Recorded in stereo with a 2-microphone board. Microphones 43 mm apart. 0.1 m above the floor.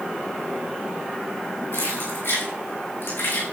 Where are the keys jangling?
85° left, 7.5 m; by 3.4 s 80° left, 6.5 m.